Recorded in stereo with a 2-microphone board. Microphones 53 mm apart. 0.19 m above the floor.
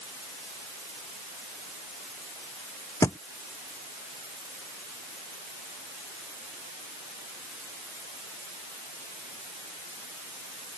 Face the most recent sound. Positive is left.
turn(degrees=80)